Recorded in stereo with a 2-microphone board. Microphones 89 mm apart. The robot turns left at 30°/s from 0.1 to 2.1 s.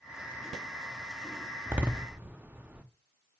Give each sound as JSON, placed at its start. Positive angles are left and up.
{"t": 1.7, "sound": "a door slam", "side_deg": -20, "distance_m": 0.6}